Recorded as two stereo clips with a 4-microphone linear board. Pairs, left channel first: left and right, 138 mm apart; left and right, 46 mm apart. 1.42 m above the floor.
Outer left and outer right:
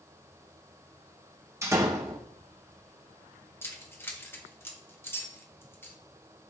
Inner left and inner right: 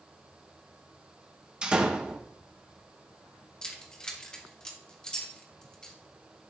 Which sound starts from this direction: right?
A door slam, at 1.6 s.